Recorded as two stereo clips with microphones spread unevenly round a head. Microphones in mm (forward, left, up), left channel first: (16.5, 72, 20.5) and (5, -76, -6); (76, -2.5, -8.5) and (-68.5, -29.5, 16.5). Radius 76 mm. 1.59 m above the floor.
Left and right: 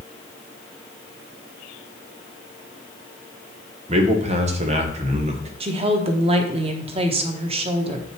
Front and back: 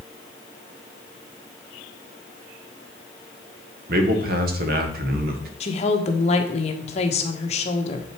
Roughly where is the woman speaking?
Ahead right.